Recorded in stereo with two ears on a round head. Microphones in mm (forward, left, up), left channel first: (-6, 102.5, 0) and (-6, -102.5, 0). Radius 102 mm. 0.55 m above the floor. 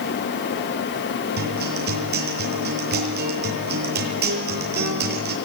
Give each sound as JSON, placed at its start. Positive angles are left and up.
{"t": 1.4, "sound": "a guitar", "side_deg": -45, "distance_m": 7.5}